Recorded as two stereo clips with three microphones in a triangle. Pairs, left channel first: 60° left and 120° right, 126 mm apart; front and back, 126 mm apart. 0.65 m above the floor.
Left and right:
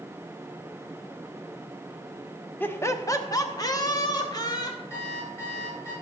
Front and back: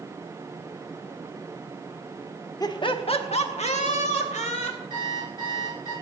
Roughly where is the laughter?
Ahead.